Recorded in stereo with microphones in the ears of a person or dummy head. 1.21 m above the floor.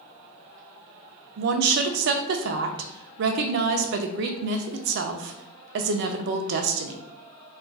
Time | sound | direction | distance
1.4 | a woman speaking | 60° right (ahead or behind) | 0.5 m